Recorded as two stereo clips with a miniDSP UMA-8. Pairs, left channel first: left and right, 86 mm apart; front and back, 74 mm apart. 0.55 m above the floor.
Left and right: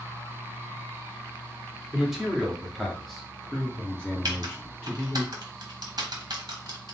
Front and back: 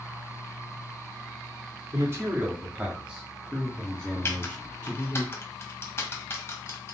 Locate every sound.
1.9 s a man speaking: 170° right, 1.3 m; by 5.2 s 25° left, 1.4 m
4.2 s typing on a keyboard: 55° right, 1.0 m